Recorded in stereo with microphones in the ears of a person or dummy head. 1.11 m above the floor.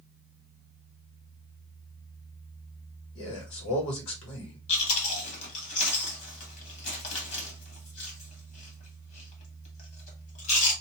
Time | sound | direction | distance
3.1 | a man speaking | 65° left (ahead or behind) | 1.4 m
4.7 | chewing | 40° left (ahead or behind) | 1.1 m